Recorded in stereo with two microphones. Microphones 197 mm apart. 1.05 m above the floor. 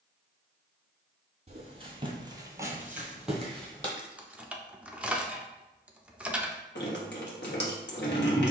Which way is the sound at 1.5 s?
35° right (ahead or behind).